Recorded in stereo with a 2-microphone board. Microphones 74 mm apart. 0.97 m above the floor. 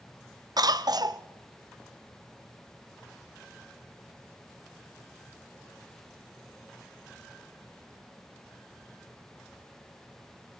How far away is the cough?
About 0.7 m.